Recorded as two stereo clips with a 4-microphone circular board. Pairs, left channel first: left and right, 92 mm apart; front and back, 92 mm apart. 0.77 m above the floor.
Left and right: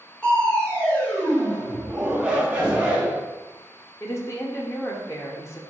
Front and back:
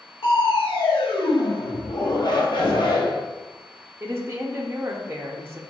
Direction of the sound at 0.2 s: 15° left.